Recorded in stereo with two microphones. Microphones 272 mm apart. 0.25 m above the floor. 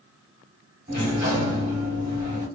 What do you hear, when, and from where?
0.9 s a sliding door: 40° right (ahead or behind), 2 m